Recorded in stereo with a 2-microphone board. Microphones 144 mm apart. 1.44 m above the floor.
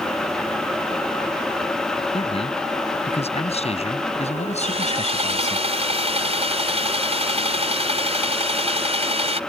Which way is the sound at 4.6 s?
50° right (ahead or behind).